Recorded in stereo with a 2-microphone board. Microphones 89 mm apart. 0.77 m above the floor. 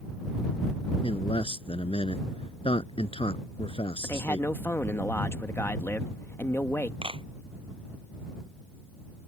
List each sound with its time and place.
1.0 s a man speaking: 85° left
4.0 s a man speaking: 25° left (ahead or behind)
7.0 s a clap: 85° right